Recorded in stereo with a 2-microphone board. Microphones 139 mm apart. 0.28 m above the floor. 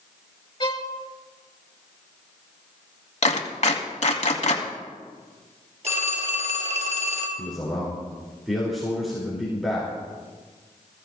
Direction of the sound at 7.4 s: Centre (ahead or behind).